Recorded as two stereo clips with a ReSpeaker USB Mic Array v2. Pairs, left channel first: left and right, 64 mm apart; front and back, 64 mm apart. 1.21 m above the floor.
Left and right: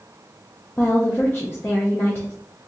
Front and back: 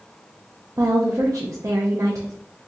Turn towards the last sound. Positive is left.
turn(degrees=145)